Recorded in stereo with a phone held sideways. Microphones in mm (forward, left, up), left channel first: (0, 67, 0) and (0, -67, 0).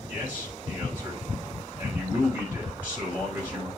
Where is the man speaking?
10° right (ahead or behind), 5.5 m.